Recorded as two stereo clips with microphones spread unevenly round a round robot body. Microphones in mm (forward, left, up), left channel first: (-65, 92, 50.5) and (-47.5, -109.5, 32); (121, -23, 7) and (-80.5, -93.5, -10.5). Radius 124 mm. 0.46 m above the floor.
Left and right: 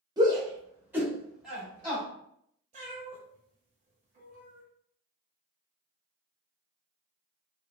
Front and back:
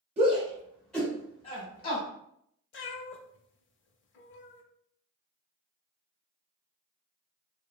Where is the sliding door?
I don't hear a sliding door.